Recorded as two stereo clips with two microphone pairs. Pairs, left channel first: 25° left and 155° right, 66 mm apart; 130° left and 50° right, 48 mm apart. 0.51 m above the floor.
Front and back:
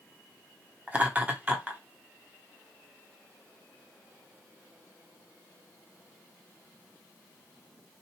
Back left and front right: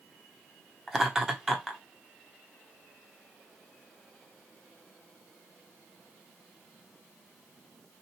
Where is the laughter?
125° right, 1.0 m.